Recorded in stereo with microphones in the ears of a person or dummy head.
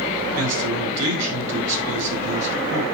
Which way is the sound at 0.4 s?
65° right (ahead or behind).